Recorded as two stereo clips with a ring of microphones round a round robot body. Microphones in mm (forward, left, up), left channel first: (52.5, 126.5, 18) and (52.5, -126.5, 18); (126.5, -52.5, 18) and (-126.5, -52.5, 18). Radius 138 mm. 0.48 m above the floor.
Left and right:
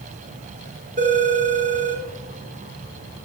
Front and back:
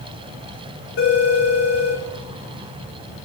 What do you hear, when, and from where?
1.0 s a phone ringing: 30° right, 4 m